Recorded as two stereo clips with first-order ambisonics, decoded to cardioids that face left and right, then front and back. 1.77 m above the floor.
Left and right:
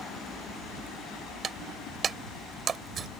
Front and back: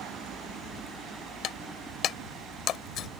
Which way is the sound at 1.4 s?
35° right.